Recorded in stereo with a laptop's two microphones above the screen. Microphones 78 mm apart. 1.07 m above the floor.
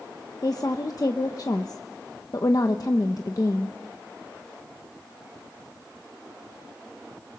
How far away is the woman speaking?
About 0.8 m.